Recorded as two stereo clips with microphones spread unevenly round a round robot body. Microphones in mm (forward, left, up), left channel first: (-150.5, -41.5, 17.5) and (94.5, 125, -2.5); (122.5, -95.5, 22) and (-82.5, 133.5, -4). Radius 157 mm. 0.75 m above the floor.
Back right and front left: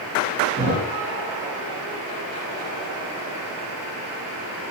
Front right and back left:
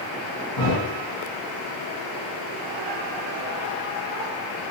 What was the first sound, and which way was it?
A thud, 35° right.